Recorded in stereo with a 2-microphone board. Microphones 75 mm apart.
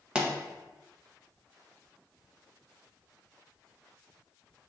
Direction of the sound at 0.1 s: 15° right (ahead or behind).